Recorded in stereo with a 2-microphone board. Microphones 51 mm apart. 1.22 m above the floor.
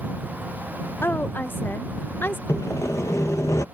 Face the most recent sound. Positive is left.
turn(degrees=75)  # may be behind; listen again after turning